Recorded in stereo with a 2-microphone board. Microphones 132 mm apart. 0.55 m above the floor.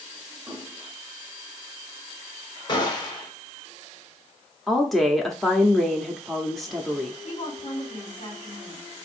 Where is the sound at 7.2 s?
50° left (ahead or behind), 2 m.